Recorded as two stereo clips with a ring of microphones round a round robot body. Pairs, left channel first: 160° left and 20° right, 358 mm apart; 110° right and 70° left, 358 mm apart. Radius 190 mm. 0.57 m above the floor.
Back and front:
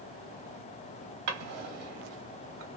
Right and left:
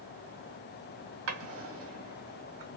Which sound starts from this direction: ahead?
A drawer, at 1.3 s.